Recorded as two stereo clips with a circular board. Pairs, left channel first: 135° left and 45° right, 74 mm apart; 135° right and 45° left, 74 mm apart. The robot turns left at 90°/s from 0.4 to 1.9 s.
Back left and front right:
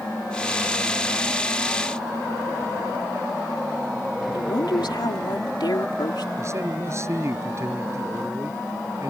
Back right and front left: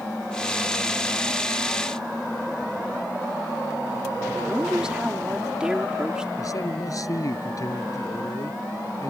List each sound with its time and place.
4.3 s a woman speaking: 125° left
6.4 s a man speaking: 95° right